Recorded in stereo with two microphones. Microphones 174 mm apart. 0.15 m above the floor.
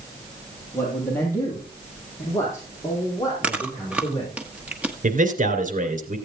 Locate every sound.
0.7 s a man speaking: 10° left (ahead or behind), 4.5 m; by 4.3 s 20° left (ahead or behind), 7 m
3.4 s chewing: 10° right (ahead or behind), 1.3 m
5.0 s a man speaking: 50° right (ahead or behind), 2.5 m